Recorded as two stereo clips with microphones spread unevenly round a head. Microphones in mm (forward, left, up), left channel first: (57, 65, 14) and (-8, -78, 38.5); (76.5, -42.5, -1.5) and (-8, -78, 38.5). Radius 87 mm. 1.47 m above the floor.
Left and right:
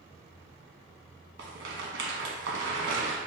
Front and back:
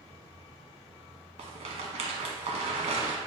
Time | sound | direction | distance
1.4 | a rattle | 145° right | 1.0 m